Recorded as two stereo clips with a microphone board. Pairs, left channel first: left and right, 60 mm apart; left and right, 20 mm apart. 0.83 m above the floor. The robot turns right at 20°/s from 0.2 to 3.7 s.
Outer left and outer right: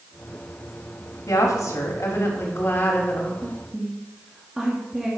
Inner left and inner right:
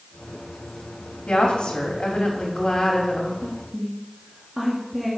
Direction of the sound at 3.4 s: 15° right (ahead or behind).